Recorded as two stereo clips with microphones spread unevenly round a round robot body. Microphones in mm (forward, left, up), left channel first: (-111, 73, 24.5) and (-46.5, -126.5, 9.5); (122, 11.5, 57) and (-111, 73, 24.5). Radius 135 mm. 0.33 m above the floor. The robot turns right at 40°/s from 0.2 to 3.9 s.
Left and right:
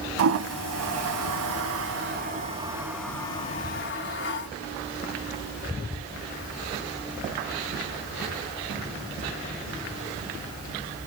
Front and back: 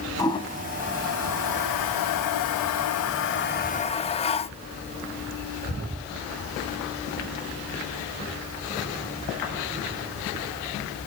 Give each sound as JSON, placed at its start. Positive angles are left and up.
{"t": 0.2, "sound": "a toilet flushing", "azimuth_deg": -95, "distance_m": 0.6}